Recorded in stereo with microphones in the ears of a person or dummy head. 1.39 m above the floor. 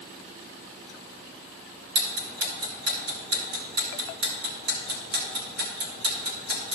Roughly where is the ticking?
Right.